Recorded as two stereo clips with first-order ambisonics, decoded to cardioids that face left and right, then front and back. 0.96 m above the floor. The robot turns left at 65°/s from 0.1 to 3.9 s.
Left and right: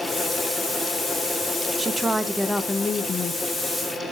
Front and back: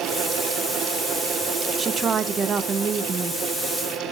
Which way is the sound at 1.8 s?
140° right.